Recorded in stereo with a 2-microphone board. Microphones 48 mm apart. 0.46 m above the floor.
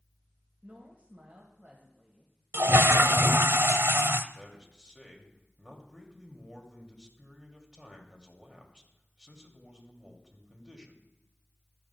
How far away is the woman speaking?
About 1.9 m.